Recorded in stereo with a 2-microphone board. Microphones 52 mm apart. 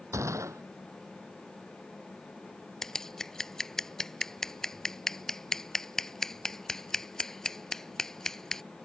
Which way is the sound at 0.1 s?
75° right (ahead or behind).